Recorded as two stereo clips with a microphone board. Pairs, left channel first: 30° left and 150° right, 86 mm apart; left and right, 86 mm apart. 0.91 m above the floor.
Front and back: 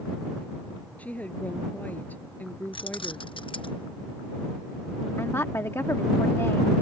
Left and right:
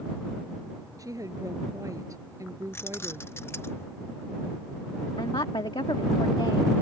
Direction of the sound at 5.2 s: 85° left.